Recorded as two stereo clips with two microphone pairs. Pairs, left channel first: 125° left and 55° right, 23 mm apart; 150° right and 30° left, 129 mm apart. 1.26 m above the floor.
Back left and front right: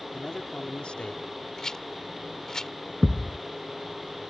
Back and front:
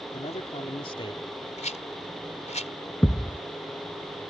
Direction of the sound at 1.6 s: 170° right.